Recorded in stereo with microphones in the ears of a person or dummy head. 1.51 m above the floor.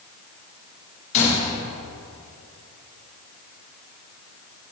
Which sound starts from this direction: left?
A gunshot, at 1.1 s.